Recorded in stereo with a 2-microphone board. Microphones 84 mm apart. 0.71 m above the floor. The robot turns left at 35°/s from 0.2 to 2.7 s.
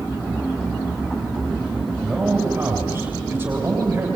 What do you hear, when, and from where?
2.0 s a man speaking: 5° right (ahead or behind), 3.5 m; by 4.1 s 25° right (ahead or behind), 3.5 m